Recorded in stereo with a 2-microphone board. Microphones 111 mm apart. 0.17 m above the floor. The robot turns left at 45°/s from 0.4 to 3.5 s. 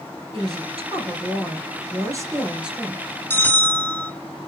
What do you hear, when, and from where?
0.3 s a woman speaking: 70° right, 3 m; by 3.2 s 165° left, 3 m
3.3 s a bell: 20° left (ahead or behind), 1.5 m; by 4.1 s 15° left (ahead or behind), 1.5 m